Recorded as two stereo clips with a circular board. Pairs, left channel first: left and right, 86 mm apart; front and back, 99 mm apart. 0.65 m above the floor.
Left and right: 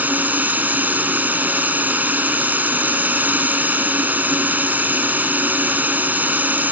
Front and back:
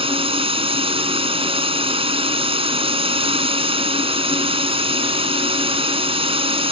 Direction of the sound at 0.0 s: 160° right.